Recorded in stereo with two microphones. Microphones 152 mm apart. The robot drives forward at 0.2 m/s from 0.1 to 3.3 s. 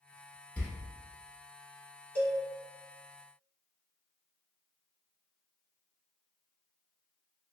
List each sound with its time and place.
0.6 s a door slam: 10° left (ahead or behind), 0.8 m
2.1 s a cowbell: 10° left (ahead or behind), 1.9 m